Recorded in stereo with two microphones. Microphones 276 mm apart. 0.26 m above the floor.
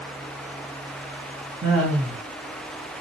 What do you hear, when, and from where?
1.6 s laughter: 55° right (ahead or behind), 2.5 m